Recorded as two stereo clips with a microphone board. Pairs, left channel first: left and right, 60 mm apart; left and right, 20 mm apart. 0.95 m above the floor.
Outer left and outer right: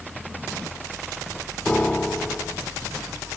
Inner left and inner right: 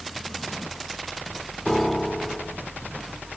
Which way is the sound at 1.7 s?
20° left (ahead or behind).